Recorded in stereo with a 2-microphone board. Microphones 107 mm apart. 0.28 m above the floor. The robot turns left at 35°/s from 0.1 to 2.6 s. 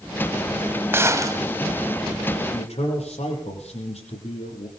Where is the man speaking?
75° left (ahead or behind), 9 m; by 4.7 s 80° left, 9 m.